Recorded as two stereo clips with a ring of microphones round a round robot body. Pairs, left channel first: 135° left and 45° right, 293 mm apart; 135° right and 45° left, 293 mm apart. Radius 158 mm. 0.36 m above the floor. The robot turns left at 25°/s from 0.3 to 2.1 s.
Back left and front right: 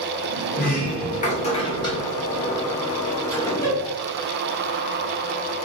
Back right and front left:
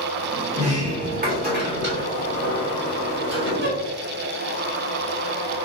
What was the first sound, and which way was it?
A sliding door, 100° left.